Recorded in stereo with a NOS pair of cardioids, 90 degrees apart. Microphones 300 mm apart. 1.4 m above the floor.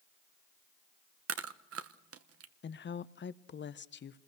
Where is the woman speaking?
35° left, 0.9 m.